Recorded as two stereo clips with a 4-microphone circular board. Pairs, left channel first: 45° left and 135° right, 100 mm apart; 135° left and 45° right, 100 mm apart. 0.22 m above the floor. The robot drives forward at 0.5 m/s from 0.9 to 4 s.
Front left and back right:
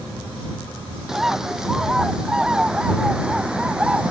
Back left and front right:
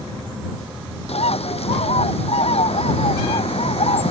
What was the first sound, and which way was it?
A bird, 140° left.